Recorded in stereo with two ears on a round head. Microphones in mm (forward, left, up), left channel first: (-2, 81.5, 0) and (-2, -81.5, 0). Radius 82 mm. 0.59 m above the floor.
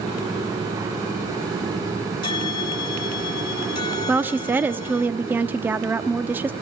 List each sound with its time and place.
2.2 s a bell: 25° left (ahead or behind), 2 m
4.1 s a woman speaking: 10° right (ahead or behind), 0.9 m